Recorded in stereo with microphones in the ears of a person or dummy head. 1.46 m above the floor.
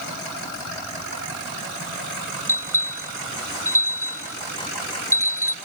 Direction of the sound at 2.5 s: 15° left (ahead or behind).